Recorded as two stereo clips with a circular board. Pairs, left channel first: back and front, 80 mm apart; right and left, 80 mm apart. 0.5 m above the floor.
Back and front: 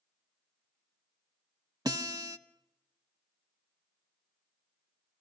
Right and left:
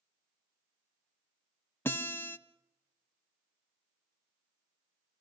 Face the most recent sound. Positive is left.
turn(degrees=-30)